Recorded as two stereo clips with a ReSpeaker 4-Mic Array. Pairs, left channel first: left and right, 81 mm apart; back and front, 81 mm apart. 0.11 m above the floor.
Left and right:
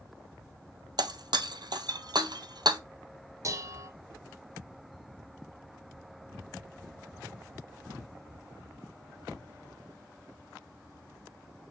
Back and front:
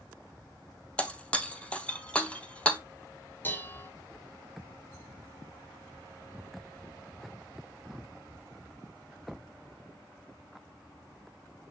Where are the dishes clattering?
120° right, 1.4 m.